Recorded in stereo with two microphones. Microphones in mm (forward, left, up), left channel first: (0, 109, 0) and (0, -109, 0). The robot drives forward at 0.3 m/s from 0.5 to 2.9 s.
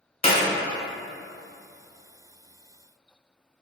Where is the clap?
30° left (ahead or behind), 0.9 m.